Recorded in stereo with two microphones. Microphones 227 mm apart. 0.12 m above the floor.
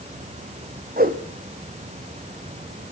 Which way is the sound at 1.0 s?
40° right (ahead or behind).